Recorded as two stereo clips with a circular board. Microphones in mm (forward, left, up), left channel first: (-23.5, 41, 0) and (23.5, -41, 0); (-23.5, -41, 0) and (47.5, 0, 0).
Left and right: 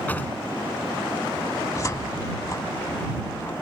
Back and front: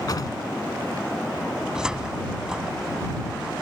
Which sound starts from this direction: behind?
A drawer, at 0.1 s.